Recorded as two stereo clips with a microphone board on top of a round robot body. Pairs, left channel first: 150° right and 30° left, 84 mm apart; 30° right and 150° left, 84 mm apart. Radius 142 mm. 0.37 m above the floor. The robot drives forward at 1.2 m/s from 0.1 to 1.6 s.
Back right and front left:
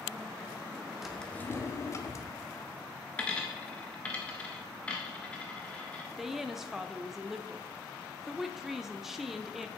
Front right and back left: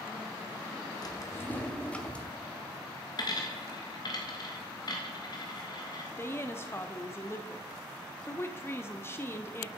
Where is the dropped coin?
70° right, 0.7 m.